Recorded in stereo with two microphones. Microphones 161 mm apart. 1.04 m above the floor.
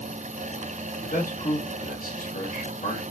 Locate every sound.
1.0 s a man speaking: 70° left (ahead or behind), 1.9 m